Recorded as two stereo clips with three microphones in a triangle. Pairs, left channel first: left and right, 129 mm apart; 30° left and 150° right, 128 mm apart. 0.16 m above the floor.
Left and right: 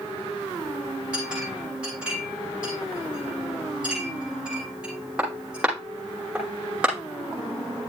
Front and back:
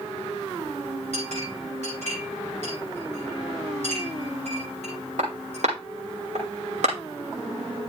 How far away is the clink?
About 5.5 m.